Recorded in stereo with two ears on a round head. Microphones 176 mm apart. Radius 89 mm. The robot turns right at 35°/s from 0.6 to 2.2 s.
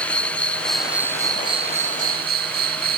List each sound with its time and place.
0.0 s an insect: 175° left; by 3.0 s 130° right